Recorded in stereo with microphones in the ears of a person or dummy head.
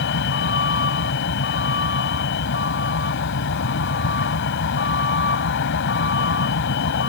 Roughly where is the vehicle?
Left.